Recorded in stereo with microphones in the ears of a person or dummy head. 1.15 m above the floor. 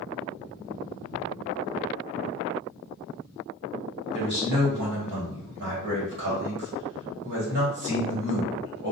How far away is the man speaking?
About 1.1 m.